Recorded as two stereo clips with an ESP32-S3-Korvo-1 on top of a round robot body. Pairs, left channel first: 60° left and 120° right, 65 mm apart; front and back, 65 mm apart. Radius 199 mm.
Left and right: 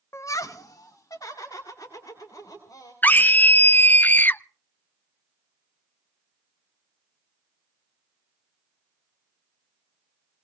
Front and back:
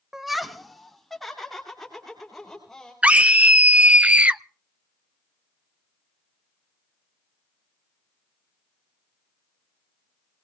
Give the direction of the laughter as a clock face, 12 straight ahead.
9 o'clock.